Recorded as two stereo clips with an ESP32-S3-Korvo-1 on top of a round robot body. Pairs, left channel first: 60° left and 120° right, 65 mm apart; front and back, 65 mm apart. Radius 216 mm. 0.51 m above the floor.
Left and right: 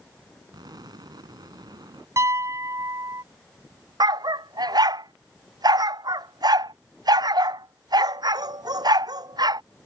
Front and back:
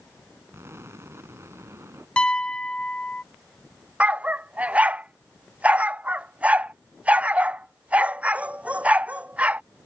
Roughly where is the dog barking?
Right.